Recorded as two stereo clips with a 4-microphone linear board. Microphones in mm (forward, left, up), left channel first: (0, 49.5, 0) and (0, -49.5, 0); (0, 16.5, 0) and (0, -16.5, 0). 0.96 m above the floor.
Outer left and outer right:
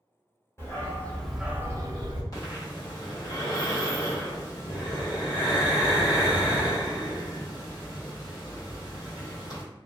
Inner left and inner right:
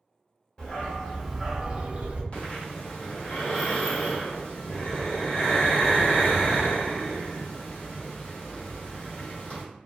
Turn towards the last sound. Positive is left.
turn(degrees=35)  # may be behind; listen again after turning